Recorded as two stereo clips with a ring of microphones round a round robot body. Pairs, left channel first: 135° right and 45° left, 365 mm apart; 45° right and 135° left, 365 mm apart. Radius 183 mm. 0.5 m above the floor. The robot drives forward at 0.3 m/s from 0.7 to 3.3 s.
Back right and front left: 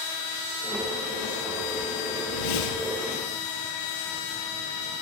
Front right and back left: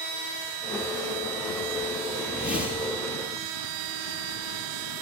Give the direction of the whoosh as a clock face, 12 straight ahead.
5 o'clock.